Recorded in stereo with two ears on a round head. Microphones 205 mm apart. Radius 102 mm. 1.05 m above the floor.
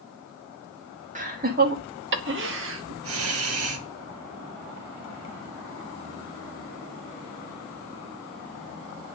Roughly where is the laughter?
Right.